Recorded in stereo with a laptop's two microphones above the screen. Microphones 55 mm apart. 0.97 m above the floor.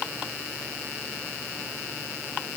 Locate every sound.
Only background noise.